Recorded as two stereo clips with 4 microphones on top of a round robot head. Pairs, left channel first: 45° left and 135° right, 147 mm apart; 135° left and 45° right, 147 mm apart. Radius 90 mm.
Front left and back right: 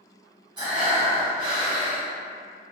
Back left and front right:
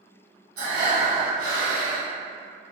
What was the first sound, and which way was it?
Breathing, 75° right.